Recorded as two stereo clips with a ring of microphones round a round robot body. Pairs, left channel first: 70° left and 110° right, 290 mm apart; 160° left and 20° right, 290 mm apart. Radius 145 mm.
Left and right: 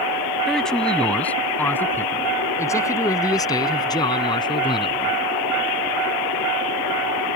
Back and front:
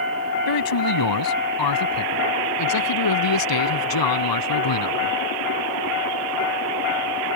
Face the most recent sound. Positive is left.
turn(degrees=140)